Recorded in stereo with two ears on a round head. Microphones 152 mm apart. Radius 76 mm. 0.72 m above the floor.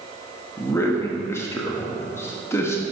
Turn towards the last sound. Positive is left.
turn(degrees=15)  # may be behind; listen again after turning